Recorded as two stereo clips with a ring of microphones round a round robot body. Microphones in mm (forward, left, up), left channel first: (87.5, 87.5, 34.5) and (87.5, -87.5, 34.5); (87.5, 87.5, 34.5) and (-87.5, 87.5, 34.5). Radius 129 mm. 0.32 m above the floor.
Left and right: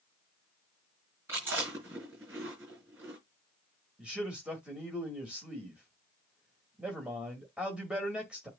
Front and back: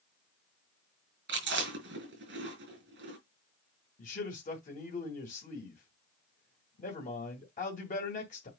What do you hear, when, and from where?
1.3 s chewing: 170° right, 4 m
4.0 s a man speaking: 10° right, 2 m